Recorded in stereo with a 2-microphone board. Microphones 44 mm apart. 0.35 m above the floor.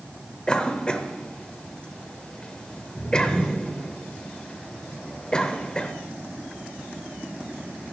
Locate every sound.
0.5 s a cough: 20° left (ahead or behind), 0.9 m